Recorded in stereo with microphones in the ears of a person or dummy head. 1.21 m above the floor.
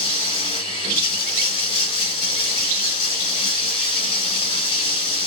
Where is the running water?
30° left (ahead or behind), 2.5 m.